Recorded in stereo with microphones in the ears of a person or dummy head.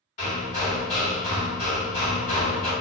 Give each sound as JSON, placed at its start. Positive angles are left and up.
{"t": 0.2, "sound": "hammering", "side_deg": 45, "distance_m": 1.9}